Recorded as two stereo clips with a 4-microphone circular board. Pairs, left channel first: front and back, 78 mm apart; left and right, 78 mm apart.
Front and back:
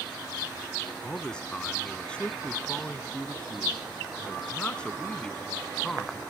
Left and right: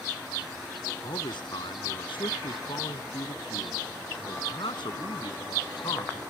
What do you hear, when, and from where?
1.0 s a man speaking: 75° left